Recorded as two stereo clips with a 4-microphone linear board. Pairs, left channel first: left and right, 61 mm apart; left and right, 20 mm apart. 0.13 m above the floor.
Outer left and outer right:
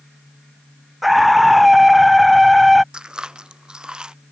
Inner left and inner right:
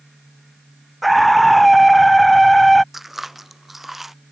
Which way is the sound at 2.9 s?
15° right (ahead or behind).